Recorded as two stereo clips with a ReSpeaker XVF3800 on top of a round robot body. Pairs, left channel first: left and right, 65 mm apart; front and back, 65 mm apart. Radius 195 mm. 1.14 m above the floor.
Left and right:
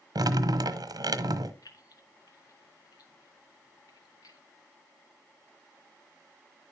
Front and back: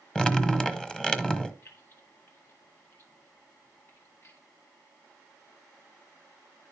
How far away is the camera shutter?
No camera shutter in this recording.